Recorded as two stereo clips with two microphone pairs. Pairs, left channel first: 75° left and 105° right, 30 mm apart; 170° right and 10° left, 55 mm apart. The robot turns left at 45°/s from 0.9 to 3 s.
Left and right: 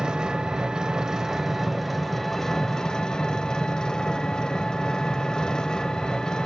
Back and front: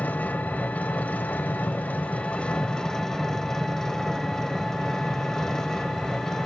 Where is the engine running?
145° right, 0.7 m; by 6.5 s 120° left, 0.7 m.